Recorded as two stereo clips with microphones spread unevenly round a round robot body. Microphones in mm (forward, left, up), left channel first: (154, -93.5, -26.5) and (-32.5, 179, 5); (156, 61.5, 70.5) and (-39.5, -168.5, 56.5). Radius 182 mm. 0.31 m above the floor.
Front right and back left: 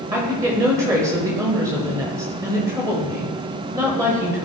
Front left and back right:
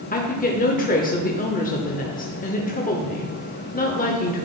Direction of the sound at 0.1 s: 40° left.